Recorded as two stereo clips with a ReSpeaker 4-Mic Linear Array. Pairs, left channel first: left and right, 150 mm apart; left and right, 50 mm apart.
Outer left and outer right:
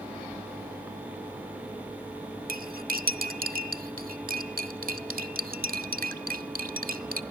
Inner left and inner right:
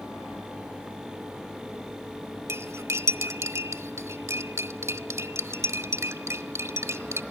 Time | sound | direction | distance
2.5 | cutlery clinking | 75° right (ahead or behind) | 1.0 m